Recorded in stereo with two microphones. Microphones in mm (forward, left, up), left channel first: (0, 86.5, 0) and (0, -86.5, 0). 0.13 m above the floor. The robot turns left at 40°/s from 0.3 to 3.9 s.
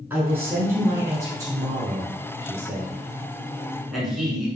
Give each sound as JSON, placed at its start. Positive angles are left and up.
{"t": 0.1, "sound": "a man speaking", "side_deg": -10, "distance_m": 1.0}